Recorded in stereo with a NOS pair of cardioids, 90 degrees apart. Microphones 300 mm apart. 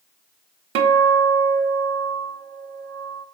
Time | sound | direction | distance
0.8 | a guitar | 50° right | 0.5 m